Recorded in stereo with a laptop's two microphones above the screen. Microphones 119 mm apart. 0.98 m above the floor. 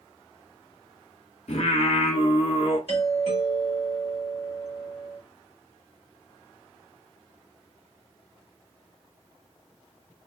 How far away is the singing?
About 1.1 m.